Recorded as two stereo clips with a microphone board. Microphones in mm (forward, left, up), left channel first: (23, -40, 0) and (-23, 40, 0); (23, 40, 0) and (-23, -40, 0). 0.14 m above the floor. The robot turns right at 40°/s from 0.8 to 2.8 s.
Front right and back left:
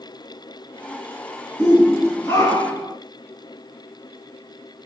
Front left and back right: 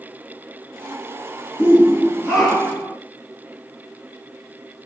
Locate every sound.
1.6 s a shout: 70° right, 2.0 m; by 3.0 s 20° right, 2.0 m